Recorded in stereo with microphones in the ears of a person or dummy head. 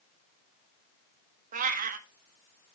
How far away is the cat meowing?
About 1.5 m.